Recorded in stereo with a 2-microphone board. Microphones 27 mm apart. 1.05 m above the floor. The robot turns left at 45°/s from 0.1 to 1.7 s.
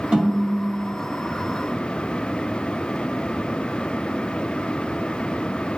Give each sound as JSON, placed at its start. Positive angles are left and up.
{"t": 0.1, "sound": "a snare drum", "azimuth_deg": -40, "distance_m": 1.9}